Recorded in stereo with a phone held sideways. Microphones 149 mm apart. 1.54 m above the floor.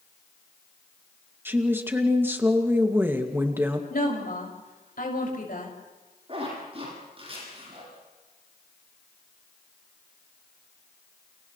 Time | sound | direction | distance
1.4 | a woman speaking | 15° right (ahead or behind) | 2.5 m
3.9 | a woman speaking | 70° left (ahead or behind) | 6.5 m
6.3 | a zipper | 40° right (ahead or behind) | 10 m